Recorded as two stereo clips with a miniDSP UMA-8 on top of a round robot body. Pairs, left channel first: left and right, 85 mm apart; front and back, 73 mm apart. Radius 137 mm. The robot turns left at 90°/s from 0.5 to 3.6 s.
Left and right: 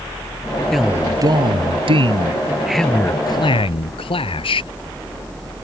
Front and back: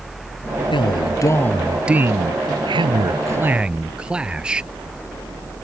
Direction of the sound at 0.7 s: Straight ahead.